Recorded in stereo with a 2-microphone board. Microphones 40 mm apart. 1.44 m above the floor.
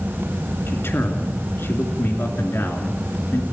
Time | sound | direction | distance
0.7 | a man speaking | 75° left (ahead or behind) | 3 m